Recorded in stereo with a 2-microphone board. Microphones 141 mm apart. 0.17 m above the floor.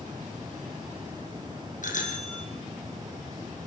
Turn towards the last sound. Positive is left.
turn(degrees=65)  # may be behind; listen again after turning